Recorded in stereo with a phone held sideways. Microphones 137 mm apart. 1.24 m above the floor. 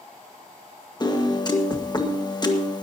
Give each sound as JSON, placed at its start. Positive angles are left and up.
{"t": 1.0, "sound": "a piano", "side_deg": 30, "distance_m": 1.4}